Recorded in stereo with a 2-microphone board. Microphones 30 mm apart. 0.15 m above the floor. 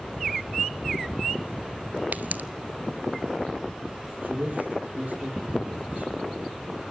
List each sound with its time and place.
2.1 s a pop: 70° right (ahead or behind), 0.7 m
4.2 s a man speaking: 50° right (ahead or behind), 5 m